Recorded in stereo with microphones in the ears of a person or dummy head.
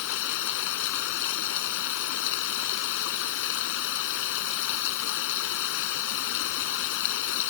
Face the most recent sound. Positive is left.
turn(degrees=75)  # may be behind; listen again after turning